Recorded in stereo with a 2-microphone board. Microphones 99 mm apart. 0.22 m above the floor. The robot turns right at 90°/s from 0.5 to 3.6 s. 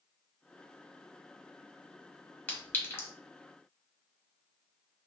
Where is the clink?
20° left (ahead or behind), 0.9 m; by 3.1 s 25° left (ahead or behind), 0.9 m.